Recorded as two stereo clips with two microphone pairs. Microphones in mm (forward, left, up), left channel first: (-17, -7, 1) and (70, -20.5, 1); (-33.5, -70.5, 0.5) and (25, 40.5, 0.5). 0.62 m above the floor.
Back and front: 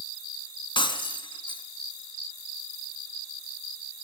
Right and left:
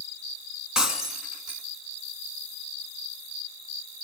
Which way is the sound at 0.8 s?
150° left.